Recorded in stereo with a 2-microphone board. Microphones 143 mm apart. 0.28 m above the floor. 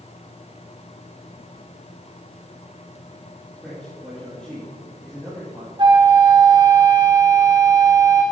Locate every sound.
3.6 s a man speaking: centre (ahead or behind), 6 m
5.8 s a flute: 35° right (ahead or behind), 1.9 m